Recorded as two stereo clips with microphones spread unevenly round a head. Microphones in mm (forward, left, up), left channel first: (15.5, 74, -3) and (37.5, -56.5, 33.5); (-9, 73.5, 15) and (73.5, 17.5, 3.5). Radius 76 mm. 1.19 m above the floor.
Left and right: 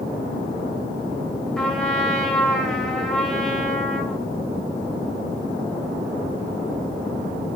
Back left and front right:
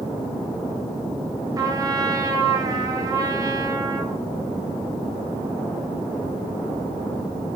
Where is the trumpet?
15° left, 3 m.